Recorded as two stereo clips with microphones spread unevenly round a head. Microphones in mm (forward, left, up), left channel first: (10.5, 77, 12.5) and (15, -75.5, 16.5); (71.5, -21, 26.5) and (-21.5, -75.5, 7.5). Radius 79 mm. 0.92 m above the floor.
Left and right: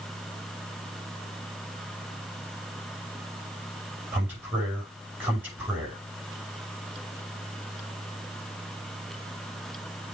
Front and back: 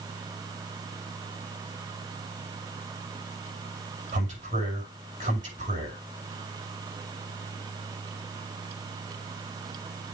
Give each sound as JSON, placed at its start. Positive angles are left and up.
{"t": 4.1, "sound": "a man speaking", "azimuth_deg": -170, "distance_m": 5.5}